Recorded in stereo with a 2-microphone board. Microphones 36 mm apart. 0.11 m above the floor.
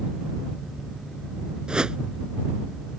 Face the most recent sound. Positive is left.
turn(degrees=-25)  # may be behind; listen again after turning